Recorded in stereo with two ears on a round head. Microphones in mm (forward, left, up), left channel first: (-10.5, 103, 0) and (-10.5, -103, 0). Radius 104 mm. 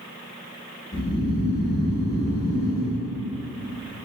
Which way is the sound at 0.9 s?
55° left (ahead or behind).